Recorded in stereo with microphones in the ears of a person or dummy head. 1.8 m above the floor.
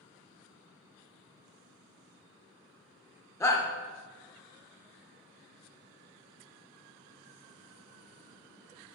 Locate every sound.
3.4 s a shout: 20° left (ahead or behind), 0.7 m